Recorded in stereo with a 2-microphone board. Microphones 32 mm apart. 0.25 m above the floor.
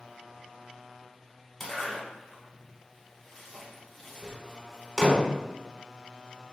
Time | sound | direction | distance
1.6 | a zipper | 5° left (ahead or behind) | 1.0 m